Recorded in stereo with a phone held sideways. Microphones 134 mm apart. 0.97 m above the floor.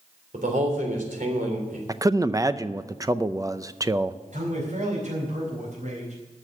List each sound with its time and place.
0.3 s a man speaking: 80° right, 3.5 m
1.9 s a man speaking: 25° right (ahead or behind), 0.5 m
4.3 s a man speaking: 70° right (ahead or behind), 4.5 m